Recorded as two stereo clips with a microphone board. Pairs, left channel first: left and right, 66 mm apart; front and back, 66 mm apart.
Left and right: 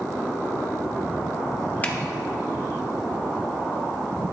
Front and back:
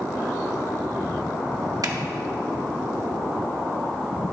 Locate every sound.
1.8 s a finger snap: 155° left, 1.0 m